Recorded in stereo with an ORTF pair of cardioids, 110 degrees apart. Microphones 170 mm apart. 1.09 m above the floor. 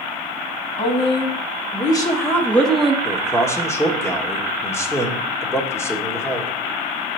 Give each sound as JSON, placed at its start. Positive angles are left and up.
{"t": 0.8, "sound": "a woman speaking", "azimuth_deg": 35, "distance_m": 2.0}
{"t": 3.0, "sound": "a man speaking", "azimuth_deg": 15, "distance_m": 1.4}